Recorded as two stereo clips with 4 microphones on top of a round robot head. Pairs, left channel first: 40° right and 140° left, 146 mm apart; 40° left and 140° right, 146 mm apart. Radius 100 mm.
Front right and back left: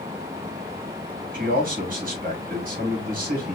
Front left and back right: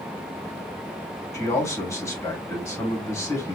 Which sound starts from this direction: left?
A man speaking, at 1.3 s.